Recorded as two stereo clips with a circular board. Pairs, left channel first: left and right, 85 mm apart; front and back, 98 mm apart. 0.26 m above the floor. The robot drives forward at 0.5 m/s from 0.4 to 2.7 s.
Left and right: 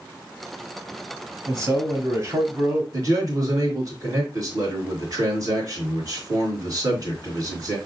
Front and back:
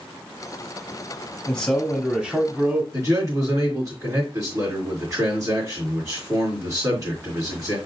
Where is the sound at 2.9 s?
130° right, 3 m.